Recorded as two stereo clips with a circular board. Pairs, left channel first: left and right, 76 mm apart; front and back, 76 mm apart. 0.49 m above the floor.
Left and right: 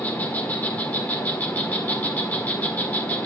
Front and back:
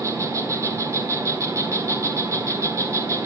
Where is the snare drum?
No snare drum in this recording.